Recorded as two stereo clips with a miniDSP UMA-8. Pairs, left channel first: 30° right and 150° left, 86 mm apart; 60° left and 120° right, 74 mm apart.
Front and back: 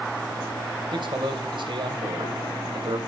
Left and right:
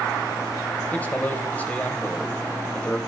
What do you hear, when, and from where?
0.9 s a man speaking: 130° left, 2.5 m